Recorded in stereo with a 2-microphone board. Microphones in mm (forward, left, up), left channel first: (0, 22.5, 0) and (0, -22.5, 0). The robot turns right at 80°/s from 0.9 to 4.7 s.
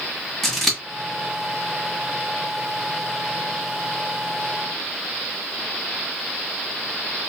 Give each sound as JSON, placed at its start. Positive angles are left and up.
{"t": 0.4, "sound": "scissors", "side_deg": 5, "distance_m": 1.5}